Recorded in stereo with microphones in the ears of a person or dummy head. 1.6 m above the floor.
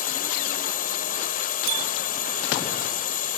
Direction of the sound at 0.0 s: 45° left (ahead or behind).